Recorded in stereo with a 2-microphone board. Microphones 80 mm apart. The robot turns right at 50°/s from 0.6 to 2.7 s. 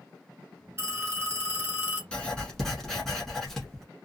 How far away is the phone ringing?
About 1.3 m.